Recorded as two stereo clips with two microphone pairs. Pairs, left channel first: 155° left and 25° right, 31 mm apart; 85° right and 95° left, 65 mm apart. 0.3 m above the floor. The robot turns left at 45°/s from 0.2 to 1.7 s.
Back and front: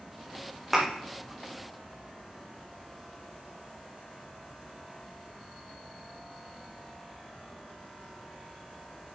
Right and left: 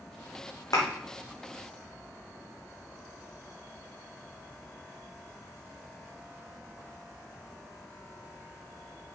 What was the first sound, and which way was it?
A thud, 115° right.